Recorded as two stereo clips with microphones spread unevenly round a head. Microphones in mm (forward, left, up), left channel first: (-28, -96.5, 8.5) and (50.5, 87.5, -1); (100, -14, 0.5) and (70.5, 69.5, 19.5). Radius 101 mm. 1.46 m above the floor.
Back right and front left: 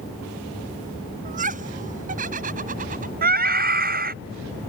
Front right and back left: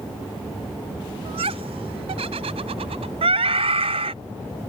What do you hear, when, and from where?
1.2 s laughter: 120° left
3.2 s a scream: 115° left